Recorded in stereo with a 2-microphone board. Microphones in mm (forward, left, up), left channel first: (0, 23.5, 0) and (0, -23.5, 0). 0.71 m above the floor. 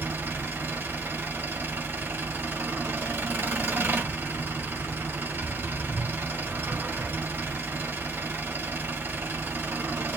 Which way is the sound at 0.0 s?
70° right (ahead or behind).